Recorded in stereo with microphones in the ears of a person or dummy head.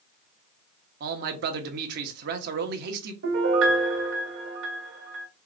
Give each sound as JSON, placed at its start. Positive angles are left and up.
{"t": 1.0, "sound": "a man speaking", "side_deg": -50, "distance_m": 0.9}
{"t": 3.2, "sound": "a piano", "side_deg": -65, "distance_m": 1.3}